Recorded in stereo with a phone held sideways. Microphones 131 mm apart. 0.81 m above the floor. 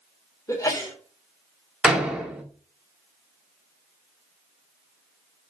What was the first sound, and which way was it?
A sneeze, 25° left (ahead or behind).